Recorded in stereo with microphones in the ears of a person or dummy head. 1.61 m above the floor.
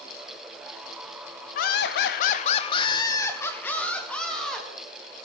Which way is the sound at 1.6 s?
50° left (ahead or behind).